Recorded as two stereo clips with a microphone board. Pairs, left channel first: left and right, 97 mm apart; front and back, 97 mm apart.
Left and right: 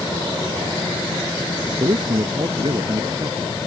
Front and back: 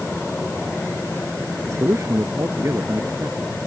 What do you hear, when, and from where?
1.7 s a man speaking: 120° right